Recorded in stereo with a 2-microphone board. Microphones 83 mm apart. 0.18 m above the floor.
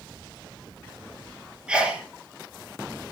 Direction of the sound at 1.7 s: 10° right (ahead or behind).